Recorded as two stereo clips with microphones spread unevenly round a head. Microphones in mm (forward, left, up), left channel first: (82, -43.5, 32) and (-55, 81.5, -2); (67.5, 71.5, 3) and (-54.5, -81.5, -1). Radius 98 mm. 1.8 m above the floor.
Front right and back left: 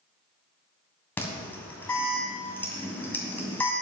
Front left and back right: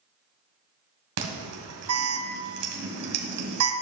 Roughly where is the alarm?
Behind right.